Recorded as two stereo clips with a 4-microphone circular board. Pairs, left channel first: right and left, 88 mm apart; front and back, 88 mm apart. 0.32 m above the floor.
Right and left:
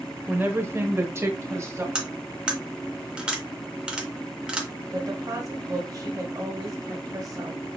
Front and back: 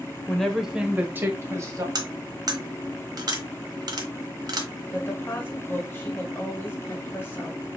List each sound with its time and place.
0.3 s a woman speaking: 65° left, 0.9 m; by 1.9 s 140° left, 1.4 m
1.9 s cutlery clinking: 165° left, 1.0 m
4.9 s a woman speaking: 55° left, 1.6 m